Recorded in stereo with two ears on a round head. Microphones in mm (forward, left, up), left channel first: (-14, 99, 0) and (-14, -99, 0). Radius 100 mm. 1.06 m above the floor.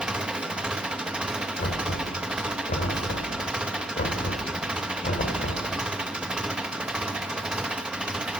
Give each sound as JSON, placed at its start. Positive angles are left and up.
{"t": 0.0, "sound": "an engine running", "side_deg": -5, "distance_m": 1.0}
{"t": 1.6, "sound": "knocking", "side_deg": 40, "distance_m": 3.0}